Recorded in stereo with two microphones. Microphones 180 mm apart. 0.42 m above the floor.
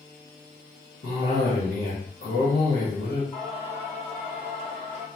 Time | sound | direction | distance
1.0 | a cough | 60° left (ahead or behind) | 1.5 m
3.3 | singing | 30° left (ahead or behind) | 1.4 m